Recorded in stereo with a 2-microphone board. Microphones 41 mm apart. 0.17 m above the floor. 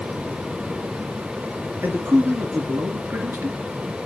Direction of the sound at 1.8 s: 55° right (ahead or behind).